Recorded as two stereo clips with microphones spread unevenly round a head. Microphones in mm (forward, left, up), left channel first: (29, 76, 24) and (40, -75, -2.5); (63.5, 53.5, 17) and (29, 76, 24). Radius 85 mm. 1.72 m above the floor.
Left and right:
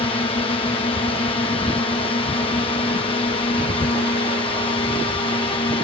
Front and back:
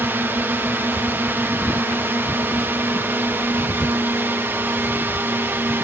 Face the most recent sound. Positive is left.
turn(degrees=150)